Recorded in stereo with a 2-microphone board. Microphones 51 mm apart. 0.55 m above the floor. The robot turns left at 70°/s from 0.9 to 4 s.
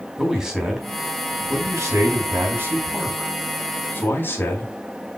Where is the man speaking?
10° right, 4 m; by 4.8 s 135° left, 4 m.